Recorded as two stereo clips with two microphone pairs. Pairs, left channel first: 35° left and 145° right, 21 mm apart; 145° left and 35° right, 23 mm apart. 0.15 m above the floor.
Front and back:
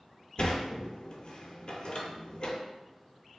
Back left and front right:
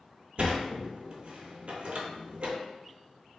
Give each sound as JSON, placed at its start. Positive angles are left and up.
{"t": 0.4, "sound": "a sliding door", "azimuth_deg": -10, "distance_m": 0.5}